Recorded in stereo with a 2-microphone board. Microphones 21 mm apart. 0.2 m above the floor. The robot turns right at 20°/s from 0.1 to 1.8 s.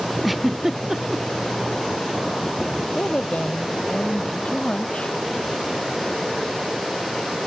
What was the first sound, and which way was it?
A giggle, 5° right (ahead or behind).